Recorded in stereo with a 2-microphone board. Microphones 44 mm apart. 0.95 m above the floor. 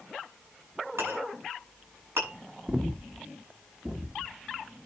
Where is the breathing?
30° right (ahead or behind), 1.1 m.